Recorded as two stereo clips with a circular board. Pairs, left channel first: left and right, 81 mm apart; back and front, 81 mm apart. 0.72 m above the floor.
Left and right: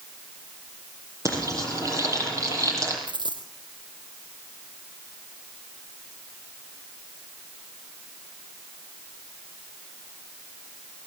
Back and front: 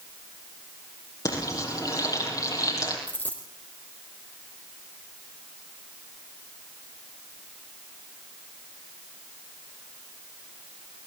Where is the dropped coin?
115° right, 3.5 m.